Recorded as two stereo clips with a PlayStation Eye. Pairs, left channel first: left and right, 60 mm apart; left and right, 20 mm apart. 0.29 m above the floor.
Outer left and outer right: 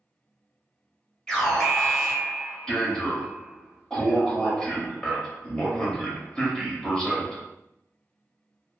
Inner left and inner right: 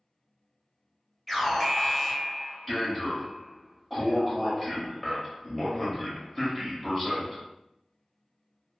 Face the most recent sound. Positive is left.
turn(degrees=15)  # may be behind; listen again after turning